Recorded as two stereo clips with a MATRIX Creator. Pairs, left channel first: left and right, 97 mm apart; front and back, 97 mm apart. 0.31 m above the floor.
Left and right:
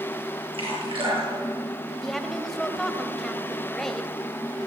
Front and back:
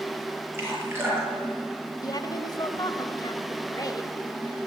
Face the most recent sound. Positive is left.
turn(degrees=5)